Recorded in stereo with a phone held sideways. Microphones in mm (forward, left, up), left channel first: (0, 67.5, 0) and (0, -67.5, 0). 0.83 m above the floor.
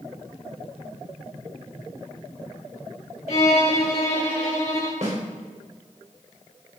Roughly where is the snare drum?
Right.